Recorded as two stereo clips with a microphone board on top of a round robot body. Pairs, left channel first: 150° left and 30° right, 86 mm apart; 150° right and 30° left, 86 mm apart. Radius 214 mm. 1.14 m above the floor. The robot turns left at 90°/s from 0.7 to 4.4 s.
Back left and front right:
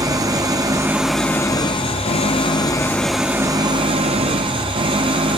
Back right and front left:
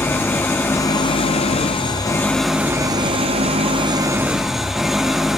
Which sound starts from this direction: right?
An engine running, at 0.0 s.